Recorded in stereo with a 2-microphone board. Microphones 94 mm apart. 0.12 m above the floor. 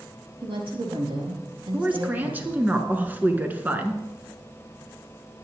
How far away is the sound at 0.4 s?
About 5 m.